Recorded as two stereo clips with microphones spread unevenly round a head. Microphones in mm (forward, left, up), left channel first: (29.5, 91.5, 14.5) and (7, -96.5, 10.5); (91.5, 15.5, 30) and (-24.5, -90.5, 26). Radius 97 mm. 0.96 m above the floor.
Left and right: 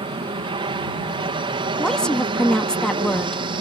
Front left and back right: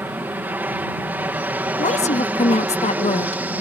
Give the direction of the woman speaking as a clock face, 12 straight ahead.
12 o'clock.